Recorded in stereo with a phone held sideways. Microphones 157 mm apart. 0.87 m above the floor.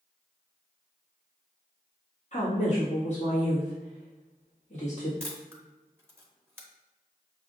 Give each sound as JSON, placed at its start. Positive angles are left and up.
{"t": 2.3, "sound": "a woman speaking", "side_deg": 50, "distance_m": 1.6}
{"t": 5.2, "sound": "a camera shutter", "side_deg": -15, "distance_m": 0.9}